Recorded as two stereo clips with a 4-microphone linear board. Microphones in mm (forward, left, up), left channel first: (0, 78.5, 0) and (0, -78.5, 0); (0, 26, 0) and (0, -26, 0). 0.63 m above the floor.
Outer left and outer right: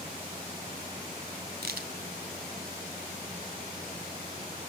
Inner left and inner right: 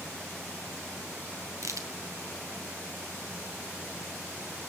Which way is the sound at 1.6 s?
85° right.